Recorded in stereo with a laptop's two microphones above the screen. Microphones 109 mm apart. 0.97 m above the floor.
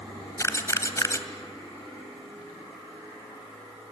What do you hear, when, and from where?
0.4 s a camera shutter: 25° left (ahead or behind), 1.9 m